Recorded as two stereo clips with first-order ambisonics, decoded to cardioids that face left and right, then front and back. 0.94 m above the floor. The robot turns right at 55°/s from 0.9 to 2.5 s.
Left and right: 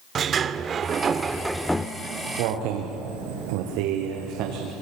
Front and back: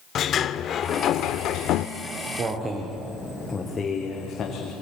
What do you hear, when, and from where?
0.1 s a sliding door: 45° right, 0.7 m; by 1.9 s 10° left, 0.7 m
2.0 s footsteps: 150° right, 3.5 m; by 4.7 s 60° right, 4 m